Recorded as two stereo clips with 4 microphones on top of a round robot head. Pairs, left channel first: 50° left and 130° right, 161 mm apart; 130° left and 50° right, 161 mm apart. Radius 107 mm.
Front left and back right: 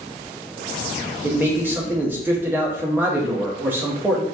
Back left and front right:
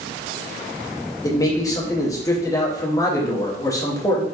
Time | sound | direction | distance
1.2 | a man speaking | 170° left | 0.6 m